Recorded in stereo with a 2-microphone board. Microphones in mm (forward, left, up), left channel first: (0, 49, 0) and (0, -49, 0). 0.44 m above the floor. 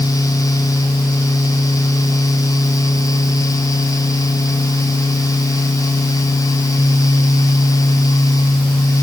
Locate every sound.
Only background noise.